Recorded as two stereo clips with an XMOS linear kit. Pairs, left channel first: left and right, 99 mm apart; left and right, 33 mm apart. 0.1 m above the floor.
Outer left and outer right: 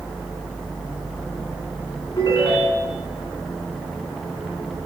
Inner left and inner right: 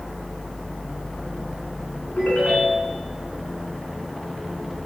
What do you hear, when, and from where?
2.2 s a ringtone: 45° left (ahead or behind), 4 m